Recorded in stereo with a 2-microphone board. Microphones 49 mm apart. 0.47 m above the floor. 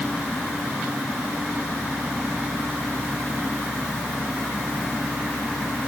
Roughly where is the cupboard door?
No cupboard door in this recording.